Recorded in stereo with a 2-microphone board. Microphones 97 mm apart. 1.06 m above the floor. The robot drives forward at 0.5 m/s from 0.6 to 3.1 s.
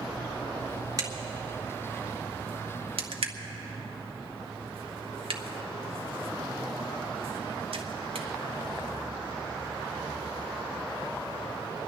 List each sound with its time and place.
1.0 s a crack: 40° right (ahead or behind), 1.6 m; by 8.3 s 75° right (ahead or behind), 1.0 m